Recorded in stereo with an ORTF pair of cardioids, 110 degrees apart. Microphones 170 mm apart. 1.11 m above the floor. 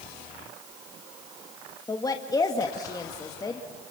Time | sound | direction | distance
1.9 | a woman speaking | 20° left | 1.8 m